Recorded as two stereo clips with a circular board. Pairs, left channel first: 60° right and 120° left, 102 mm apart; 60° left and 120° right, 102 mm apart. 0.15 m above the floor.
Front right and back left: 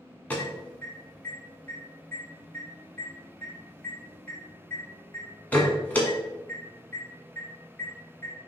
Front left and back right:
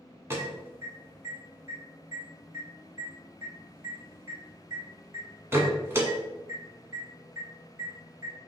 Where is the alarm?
115° right, 1.3 m.